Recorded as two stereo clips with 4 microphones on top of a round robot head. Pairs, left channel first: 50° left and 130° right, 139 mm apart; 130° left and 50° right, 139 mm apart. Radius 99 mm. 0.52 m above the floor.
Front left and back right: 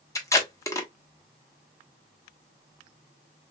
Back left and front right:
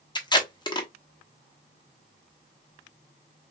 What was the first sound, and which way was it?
Tape being pulled, 100° left.